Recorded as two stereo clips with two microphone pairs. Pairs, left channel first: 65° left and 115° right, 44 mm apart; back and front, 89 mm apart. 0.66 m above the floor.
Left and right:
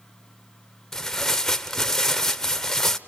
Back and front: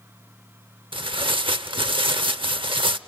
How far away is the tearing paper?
About 0.7 m.